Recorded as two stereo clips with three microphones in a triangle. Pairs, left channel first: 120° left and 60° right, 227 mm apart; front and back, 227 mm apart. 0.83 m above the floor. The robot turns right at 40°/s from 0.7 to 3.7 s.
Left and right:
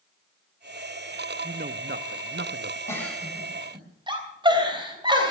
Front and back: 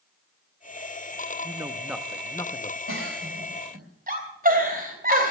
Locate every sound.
1.4 s a man speaking: 115° right, 0.7 m; by 2.8 s 60° right, 0.7 m
2.9 s a giggle: 160° right, 3 m; by 5.3 s 130° right, 3 m